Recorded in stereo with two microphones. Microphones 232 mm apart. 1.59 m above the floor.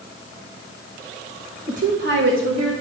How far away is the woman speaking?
About 1.3 m.